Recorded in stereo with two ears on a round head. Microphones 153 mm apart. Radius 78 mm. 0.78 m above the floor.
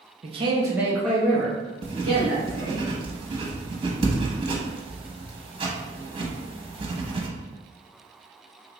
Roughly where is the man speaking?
Right.